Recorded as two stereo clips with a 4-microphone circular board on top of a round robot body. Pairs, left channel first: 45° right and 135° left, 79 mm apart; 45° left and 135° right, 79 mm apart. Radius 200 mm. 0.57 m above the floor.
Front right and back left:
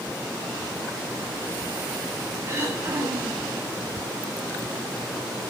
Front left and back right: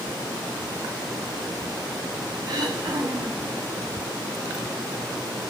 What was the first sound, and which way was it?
Throat clearing, 170° right.